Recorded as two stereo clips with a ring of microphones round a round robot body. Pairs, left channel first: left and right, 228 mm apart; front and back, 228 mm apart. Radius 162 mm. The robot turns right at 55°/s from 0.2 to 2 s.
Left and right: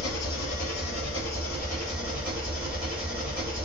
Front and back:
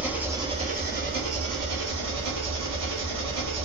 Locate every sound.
0.0 s an engine running: 95° left, 1.3 m; by 3.7 s 165° right, 1.3 m